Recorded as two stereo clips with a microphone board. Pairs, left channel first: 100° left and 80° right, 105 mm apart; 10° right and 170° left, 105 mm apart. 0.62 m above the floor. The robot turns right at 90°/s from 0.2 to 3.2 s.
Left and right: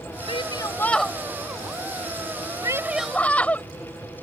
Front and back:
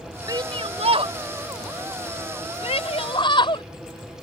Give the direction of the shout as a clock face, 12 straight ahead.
8 o'clock.